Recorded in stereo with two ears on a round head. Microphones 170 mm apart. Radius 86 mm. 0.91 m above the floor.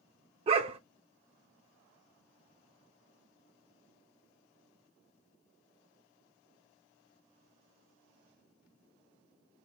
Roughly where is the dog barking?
Right.